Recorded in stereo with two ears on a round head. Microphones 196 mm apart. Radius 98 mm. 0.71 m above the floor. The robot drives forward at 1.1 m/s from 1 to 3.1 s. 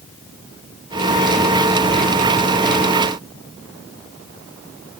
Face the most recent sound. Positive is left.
No sound to turn to.